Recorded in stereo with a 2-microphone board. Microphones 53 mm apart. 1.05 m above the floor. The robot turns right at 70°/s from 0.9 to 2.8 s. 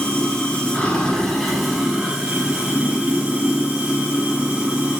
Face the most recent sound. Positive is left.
turn(degrees=-20)  # may be behind; listen again after turning